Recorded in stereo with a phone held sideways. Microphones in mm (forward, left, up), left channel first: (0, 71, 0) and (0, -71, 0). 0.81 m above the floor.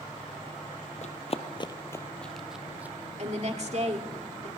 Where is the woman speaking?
50° right (ahead or behind), 2.0 m.